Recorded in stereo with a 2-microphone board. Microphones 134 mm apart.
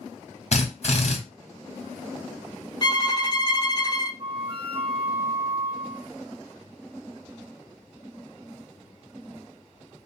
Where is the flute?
35° right (ahead or behind), 0.6 m.